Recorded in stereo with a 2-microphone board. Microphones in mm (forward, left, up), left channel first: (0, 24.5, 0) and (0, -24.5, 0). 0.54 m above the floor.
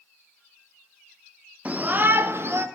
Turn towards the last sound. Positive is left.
turn(degrees=-55)  # may be behind; listen again after turning